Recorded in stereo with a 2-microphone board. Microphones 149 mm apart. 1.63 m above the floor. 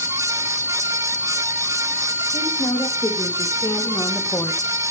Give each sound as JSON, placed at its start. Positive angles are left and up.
{"t": 2.3, "sound": "a woman speaking", "side_deg": 30, "distance_m": 3.0}